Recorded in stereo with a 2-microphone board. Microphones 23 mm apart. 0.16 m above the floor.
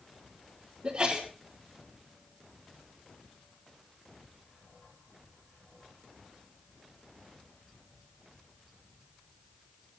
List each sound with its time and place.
0.8 s a sneeze: 55° right (ahead or behind), 4.5 m